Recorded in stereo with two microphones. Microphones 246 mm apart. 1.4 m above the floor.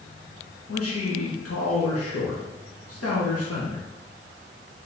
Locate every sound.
0.7 s a man speaking: 80° left, 1.2 m